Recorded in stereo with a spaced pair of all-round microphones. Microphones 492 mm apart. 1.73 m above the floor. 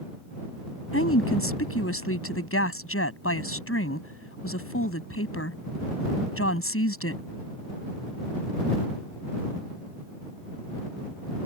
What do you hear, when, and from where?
0.9 s a woman speaking: 25° left (ahead or behind)